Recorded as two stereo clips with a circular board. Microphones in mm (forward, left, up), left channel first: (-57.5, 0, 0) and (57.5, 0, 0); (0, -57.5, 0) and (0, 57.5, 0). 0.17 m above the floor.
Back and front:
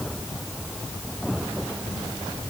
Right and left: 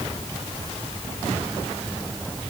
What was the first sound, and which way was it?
Only background noise.